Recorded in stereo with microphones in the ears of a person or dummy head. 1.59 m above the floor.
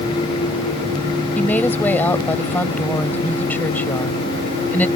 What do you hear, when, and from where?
1.4 s a woman speaking: 10° left (ahead or behind)